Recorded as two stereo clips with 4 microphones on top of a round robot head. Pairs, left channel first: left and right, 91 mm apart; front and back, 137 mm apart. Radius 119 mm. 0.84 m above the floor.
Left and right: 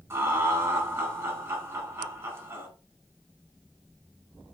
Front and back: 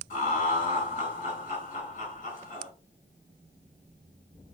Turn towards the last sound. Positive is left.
turn(degrees=-30)